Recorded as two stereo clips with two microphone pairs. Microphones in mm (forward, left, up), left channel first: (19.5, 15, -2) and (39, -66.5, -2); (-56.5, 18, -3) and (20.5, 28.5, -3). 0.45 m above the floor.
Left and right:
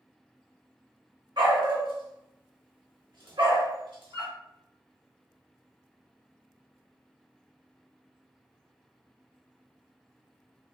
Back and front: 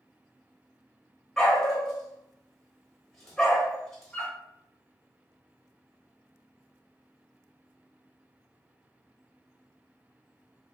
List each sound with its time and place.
1.4 s a dog barking: 90° right, 0.8 m